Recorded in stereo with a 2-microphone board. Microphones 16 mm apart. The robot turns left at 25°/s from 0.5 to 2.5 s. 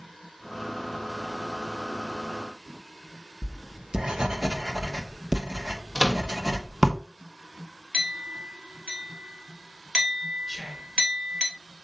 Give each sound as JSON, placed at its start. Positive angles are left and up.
{"t": 3.4, "sound": "writing", "side_deg": -50, "distance_m": 1.3}
{"t": 6.0, "sound": "a microwave", "side_deg": -35, "distance_m": 1.2}
{"t": 7.9, "sound": "a clink", "side_deg": -60, "distance_m": 3.0}
{"t": 10.5, "sound": "whispering", "side_deg": 15, "distance_m": 2.5}